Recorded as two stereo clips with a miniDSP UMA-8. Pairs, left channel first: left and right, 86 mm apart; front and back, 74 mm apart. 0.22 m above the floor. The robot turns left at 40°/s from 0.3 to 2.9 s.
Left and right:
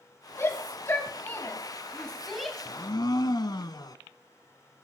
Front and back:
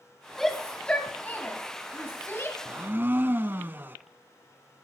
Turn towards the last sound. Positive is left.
turn(degrees=120)